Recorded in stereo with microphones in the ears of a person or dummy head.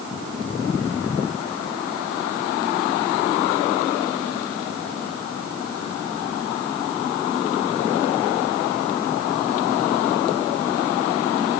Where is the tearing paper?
No tearing paper in this recording.